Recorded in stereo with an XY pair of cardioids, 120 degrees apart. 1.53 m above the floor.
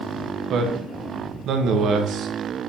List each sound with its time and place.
0.5 s a man speaking: 65° right, 0.9 m